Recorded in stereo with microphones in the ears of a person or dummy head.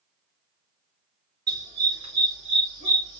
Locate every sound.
1.5 s a dog barking: 20° right (ahead or behind), 5.5 m; by 3.2 s 30° right (ahead or behind), 4.5 m